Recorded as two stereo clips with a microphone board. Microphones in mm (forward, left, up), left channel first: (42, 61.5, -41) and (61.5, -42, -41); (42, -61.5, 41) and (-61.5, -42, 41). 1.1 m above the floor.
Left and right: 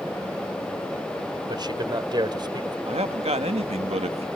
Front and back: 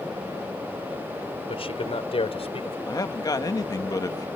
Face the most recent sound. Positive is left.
turn(degrees=-65)